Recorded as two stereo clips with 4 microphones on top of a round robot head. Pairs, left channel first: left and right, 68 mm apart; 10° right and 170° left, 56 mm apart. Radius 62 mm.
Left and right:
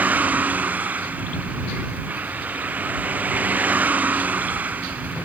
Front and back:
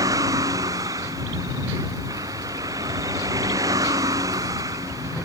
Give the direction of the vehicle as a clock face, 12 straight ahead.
5 o'clock.